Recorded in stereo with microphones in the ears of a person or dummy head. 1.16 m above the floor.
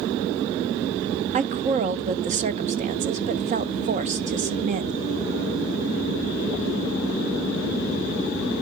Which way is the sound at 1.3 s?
35° right (ahead or behind).